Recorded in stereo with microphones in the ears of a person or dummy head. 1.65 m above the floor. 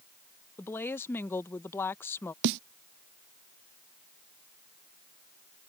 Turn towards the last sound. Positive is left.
turn(degrees=-65)  # may be behind; listen again after turning